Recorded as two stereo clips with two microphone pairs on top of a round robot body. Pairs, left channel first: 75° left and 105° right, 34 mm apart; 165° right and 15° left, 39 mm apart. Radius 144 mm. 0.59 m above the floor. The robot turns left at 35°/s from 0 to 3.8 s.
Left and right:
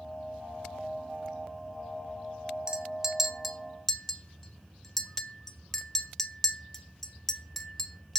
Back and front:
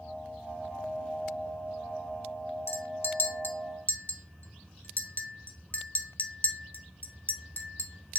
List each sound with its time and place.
2.7 s a clink: 170° right, 0.5 m; by 8.2 s 150° left, 0.5 m